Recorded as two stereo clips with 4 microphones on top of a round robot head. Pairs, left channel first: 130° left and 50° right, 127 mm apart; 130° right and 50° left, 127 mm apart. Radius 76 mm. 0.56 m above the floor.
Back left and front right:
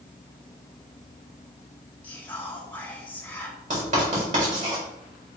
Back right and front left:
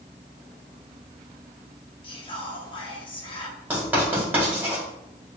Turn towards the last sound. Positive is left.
turn(degrees=-30)